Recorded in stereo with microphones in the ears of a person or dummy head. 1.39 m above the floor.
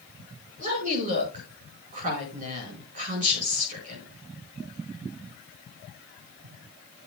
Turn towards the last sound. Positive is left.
turn(degrees=-45)  # may be behind; listen again after turning